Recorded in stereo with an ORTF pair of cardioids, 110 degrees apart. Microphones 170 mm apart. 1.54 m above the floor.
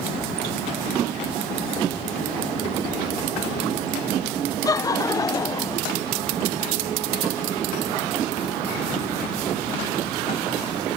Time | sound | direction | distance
4.7 | laughter | 20° left | ?